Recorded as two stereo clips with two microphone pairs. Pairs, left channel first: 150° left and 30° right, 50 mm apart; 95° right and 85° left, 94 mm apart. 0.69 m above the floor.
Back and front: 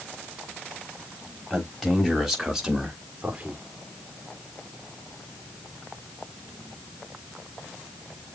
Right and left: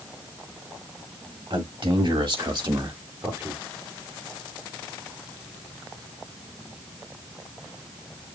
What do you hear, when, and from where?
1.5 s a man speaking: 65° left, 4 m; by 3.6 s 25° left, 1.6 m